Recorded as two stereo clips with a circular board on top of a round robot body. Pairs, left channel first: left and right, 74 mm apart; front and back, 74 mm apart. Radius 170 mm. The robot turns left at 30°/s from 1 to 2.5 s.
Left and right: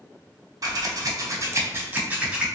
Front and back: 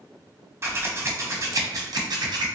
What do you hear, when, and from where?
0.6 s scissors: 125° right, 0.9 m; by 2.5 s 170° right, 0.9 m